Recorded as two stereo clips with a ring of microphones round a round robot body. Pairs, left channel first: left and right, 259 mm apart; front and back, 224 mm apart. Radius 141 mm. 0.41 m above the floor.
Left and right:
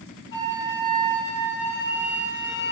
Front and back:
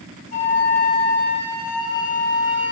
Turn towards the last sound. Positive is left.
turn(degrees=50)